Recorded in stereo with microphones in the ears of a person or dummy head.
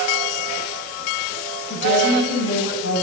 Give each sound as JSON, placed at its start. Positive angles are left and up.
{"t": 1.7, "sound": "a woman speaking", "side_deg": 65, "distance_m": 3.5}